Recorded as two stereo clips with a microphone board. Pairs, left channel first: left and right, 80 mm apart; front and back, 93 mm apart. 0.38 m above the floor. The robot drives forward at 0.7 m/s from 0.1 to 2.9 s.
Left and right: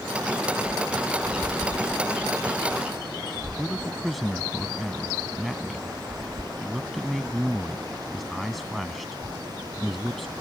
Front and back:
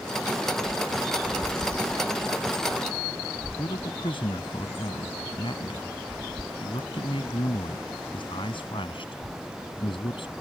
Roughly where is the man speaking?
Ahead.